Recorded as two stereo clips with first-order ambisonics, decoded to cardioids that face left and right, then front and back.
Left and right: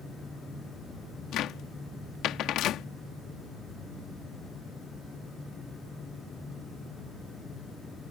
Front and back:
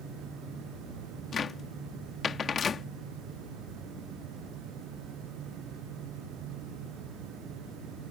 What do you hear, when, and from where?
1.3 s a cupboard door: 60° left